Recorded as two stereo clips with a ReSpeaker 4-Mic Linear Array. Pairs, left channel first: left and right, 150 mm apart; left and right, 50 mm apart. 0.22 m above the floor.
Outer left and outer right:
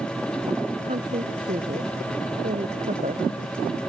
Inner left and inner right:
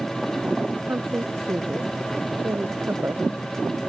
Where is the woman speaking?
55° right (ahead or behind).